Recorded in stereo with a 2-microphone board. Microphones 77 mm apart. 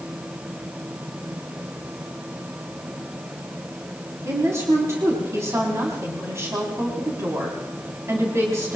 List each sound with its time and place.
4.2 s a woman speaking: 45° right (ahead or behind), 3.5 m